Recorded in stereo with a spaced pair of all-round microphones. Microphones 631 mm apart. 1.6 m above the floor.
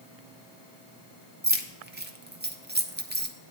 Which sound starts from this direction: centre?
Keys jangling, at 1.4 s.